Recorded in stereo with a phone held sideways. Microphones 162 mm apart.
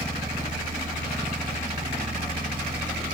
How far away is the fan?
About 1.4 m.